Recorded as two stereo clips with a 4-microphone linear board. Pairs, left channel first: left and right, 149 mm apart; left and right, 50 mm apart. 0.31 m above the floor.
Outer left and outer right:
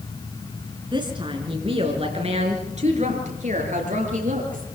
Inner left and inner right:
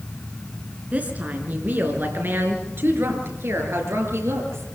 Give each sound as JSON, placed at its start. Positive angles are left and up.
{"t": 0.9, "sound": "a woman speaking", "side_deg": -30, "distance_m": 3.5}